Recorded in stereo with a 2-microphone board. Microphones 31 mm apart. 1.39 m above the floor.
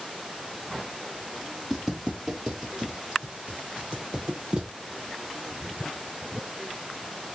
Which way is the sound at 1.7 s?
15° right (ahead or behind).